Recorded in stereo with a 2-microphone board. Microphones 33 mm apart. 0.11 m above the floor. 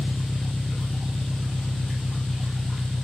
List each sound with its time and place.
0.0 s an engine running: 35° left (ahead or behind)